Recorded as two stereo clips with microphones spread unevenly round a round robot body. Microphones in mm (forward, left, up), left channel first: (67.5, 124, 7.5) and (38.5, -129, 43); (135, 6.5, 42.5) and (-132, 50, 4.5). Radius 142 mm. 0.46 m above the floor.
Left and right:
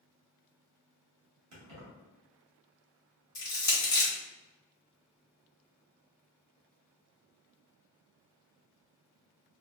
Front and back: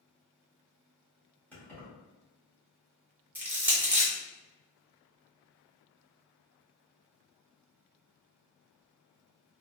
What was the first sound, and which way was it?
Keys jangling, 100° right.